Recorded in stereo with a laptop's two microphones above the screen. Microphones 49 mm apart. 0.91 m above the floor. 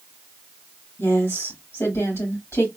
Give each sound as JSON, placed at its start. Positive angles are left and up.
{"t": 1.0, "sound": "a woman speaking", "side_deg": 70, "distance_m": 2.5}